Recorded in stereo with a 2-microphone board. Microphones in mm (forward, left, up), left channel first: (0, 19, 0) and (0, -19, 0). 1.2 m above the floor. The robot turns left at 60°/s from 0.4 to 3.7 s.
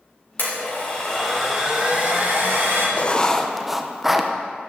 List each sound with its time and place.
0.4 s a blender: 55° left, 3.5 m; by 2.9 s 90° right, 3.5 m
3.0 s writing: 40° left, 0.6 m; by 4.3 s 5° right, 0.6 m